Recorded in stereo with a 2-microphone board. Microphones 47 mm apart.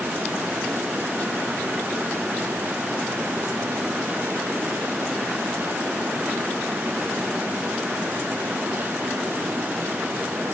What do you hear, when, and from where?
Only background noise.